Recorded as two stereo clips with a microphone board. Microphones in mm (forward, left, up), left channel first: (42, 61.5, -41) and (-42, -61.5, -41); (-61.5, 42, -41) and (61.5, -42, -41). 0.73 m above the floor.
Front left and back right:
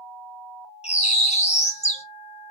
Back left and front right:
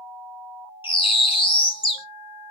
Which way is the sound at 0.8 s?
95° left.